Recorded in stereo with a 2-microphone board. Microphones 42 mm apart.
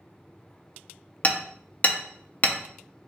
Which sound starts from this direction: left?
Hammering, at 1.2 s.